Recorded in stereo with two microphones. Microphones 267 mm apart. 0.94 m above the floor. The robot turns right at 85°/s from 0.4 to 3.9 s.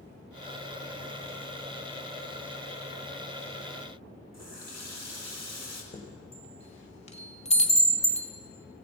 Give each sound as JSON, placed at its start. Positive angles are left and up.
{"t": 4.3, "sound": "a running tap", "side_deg": -80, "distance_m": 1.9}
{"t": 5.9, "sound": "a chime", "side_deg": 25, "distance_m": 1.3}